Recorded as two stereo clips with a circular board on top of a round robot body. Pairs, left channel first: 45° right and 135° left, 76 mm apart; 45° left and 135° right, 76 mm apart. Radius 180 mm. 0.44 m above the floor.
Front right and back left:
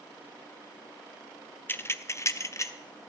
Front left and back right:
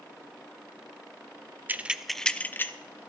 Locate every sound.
1.7 s keys jangling: 85° right, 0.8 m; by 2.7 s 5° right, 1.0 m